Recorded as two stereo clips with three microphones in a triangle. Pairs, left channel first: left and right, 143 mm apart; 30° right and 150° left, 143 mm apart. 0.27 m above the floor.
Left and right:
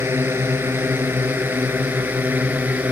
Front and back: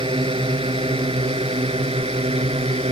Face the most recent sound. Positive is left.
turn(degrees=-170)